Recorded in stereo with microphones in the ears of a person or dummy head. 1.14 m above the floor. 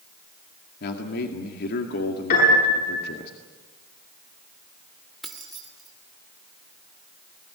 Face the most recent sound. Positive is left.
turn(degrees=5)  # may be behind; listen again after turning